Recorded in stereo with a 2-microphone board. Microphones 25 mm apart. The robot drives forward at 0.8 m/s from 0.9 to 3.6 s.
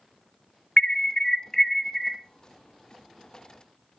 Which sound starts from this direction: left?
An alarm, at 0.8 s.